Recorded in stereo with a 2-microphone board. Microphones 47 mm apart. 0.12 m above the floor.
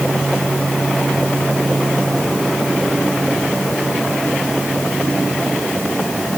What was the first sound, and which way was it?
Only background noise.